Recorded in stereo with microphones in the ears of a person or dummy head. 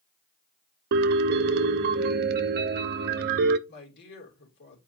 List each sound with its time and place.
0.9 s a piano: 60° right (ahead or behind), 0.8 m
3.7 s a woman speaking: 55° left (ahead or behind), 3 m